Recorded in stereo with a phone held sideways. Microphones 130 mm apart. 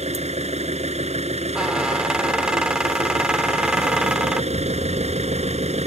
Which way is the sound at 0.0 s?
55° right (ahead or behind).